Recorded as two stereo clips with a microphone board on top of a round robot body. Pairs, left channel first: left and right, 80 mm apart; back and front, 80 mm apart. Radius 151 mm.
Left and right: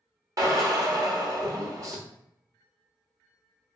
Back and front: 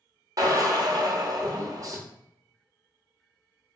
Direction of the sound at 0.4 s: 45° right.